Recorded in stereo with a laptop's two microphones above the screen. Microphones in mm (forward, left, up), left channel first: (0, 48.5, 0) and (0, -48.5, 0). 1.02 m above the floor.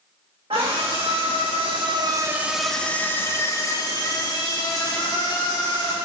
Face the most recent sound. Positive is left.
turn(degrees=45)  # may be behind; listen again after turning